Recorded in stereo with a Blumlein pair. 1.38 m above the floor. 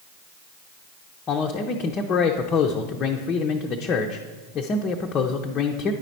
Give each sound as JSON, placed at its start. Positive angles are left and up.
{"t": 1.3, "sound": "a man speaking", "azimuth_deg": 25, "distance_m": 0.5}